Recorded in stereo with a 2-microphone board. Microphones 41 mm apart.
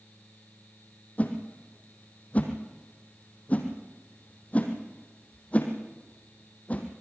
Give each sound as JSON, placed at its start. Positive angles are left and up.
{"t": 1.2, "sound": "a whoosh", "side_deg": 35, "distance_m": 3.0}